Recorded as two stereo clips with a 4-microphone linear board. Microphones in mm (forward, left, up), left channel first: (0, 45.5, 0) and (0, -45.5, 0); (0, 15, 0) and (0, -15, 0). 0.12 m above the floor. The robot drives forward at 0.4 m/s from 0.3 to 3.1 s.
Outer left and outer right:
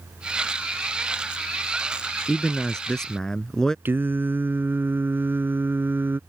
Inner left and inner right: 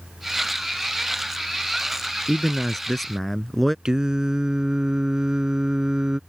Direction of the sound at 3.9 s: 25° right (ahead or behind).